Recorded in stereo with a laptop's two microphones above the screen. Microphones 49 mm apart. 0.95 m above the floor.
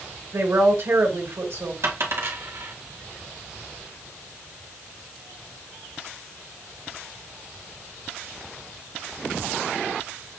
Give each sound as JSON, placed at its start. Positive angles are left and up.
{"t": 0.3, "sound": "a woman speaking", "side_deg": -60, "distance_m": 1.8}
{"t": 1.8, "sound": "a dropped coin", "side_deg": -65, "distance_m": 1.6}